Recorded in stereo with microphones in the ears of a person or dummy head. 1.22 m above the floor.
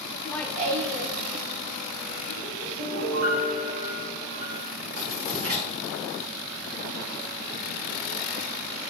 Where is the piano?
85° right, 2.5 m.